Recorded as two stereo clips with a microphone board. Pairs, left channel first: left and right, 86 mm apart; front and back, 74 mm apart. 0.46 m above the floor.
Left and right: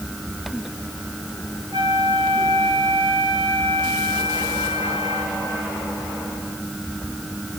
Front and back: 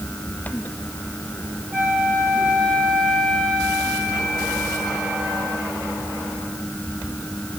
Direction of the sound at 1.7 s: 105° right.